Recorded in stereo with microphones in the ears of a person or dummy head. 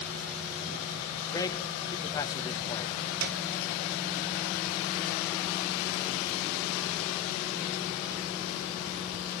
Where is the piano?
50° right (ahead or behind), 0.7 m.